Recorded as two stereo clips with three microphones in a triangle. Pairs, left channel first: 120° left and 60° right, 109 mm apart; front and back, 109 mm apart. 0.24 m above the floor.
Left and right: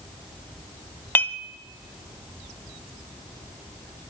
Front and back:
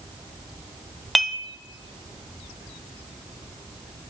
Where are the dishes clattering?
85° left, 0.6 m.